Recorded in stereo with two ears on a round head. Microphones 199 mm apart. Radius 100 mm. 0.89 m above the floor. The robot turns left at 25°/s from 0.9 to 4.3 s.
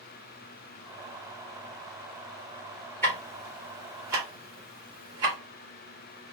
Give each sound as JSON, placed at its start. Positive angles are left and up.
{"t": 3.0, "sound": "ticking", "side_deg": 10, "distance_m": 1.6}